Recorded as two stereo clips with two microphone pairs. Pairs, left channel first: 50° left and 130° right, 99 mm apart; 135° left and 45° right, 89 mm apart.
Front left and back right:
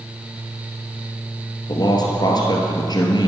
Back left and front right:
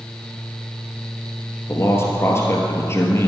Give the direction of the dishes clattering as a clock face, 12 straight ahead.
No dishes clattering in this recording.